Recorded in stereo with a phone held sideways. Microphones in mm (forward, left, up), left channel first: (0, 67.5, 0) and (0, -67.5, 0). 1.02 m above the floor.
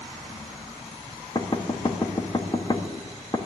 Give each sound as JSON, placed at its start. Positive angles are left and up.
{"t": 1.4, "sound": "knocking", "side_deg": 35, "distance_m": 1.2}